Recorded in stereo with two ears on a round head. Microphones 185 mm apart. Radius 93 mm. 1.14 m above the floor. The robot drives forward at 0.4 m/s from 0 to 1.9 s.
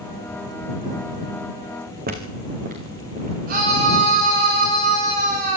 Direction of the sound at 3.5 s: 45° right (ahead or behind).